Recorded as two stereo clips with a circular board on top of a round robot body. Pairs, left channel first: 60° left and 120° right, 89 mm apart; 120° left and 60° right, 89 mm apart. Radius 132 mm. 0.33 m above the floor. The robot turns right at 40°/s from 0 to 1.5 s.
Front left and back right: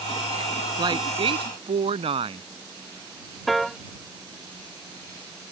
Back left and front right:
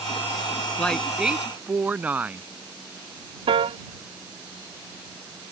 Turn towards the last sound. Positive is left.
turn(degrees=-30)